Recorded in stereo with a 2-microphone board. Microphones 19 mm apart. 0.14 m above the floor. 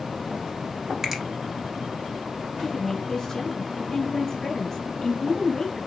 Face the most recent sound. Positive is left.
turn(degrees=30)  # may be behind; listen again after turning